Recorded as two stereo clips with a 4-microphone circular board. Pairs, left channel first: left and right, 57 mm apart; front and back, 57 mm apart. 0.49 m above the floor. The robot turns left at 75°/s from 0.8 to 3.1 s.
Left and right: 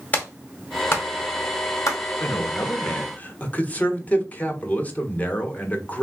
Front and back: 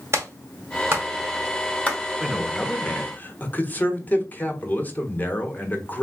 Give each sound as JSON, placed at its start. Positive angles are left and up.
{"t": 0.1, "sound": "a clap", "azimuth_deg": 145, "distance_m": 1.8}
{"t": 2.2, "sound": "a man speaking", "azimuth_deg": 110, "distance_m": 1.1}